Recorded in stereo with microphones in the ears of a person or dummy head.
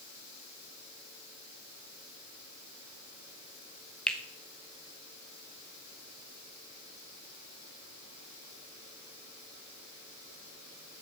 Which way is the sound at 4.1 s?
Centre (ahead or behind).